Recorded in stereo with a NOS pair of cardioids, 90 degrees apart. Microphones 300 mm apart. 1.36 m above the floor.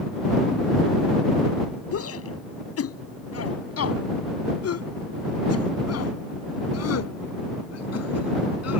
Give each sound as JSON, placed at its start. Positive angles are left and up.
{"t": 1.9, "sound": "a shout", "azimuth_deg": 50}